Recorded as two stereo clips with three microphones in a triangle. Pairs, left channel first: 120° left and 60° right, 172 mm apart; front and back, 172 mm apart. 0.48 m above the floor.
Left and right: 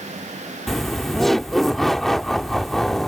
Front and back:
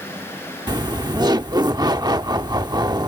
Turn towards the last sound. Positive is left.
turn(degrees=-155)